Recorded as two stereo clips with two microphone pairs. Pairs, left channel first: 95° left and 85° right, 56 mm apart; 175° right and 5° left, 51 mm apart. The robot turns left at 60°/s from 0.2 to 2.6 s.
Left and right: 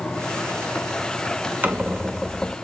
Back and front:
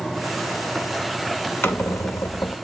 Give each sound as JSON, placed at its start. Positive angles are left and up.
{"t": 1.6, "sound": "a squeak", "azimuth_deg": -140, "distance_m": 0.6}